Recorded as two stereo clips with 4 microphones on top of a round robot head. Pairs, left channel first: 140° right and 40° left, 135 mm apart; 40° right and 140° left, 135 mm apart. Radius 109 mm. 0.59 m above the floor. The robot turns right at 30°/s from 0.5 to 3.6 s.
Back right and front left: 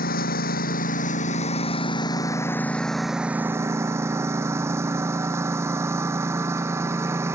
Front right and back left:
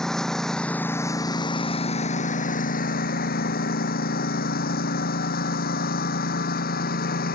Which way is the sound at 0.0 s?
125° right.